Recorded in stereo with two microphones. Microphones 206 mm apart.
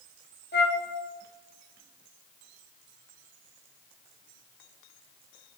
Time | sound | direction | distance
0.5 | a flute | 55° left (ahead or behind) | 1.2 m